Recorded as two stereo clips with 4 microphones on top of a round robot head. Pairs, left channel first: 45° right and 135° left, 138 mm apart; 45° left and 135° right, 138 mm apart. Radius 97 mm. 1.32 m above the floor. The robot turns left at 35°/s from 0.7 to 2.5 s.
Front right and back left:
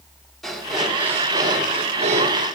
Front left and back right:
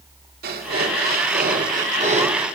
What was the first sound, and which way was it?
Breathing, 130° right.